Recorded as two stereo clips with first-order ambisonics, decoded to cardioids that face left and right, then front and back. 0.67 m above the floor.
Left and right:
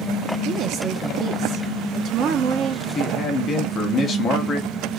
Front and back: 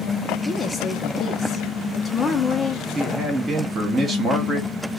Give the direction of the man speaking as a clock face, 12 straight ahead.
8 o'clock.